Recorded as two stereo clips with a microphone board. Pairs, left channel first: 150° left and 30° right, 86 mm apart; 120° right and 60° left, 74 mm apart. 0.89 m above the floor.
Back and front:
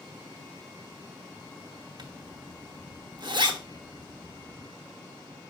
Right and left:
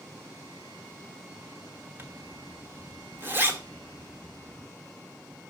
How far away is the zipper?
About 1.2 m.